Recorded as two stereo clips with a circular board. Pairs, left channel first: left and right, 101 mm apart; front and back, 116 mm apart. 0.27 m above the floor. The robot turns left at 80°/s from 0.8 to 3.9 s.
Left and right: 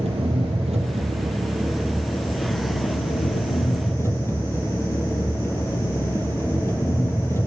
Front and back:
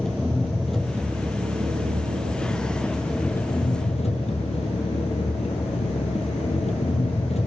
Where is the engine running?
85° right, 1.7 m; by 7.5 s 25° left, 1.7 m.